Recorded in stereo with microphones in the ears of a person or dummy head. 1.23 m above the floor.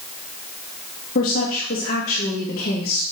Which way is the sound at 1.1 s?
45° left (ahead or behind).